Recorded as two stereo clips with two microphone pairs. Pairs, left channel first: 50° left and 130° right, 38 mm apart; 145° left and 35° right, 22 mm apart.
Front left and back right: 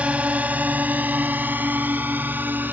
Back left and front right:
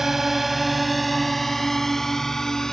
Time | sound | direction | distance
0.0 | a drone | 100° right | ?